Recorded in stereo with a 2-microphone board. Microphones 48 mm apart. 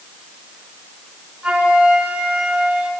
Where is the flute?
25° right (ahead or behind), 4.5 m.